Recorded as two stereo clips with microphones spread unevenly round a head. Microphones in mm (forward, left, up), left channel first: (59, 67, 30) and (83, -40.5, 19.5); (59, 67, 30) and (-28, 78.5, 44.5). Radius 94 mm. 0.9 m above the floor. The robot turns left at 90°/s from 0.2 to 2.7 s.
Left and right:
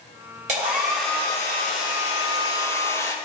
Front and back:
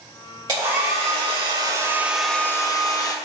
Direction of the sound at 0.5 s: 120° right.